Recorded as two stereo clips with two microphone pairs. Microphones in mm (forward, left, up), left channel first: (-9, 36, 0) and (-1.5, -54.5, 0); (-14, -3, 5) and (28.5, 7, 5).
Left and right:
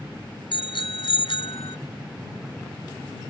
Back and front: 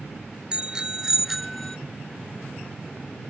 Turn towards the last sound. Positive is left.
turn(degrees=110)